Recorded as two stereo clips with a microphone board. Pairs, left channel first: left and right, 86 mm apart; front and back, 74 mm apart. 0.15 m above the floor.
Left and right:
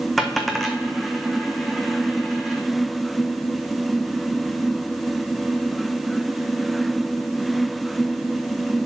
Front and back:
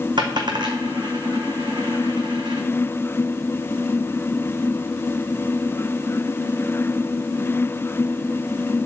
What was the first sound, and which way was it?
A dropped coin, straight behind.